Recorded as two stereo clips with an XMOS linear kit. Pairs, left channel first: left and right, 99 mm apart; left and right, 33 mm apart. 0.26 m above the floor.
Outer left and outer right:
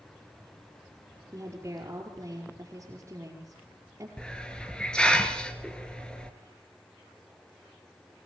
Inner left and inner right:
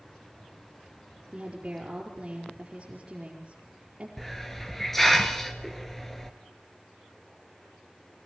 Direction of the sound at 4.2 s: 10° left (ahead or behind).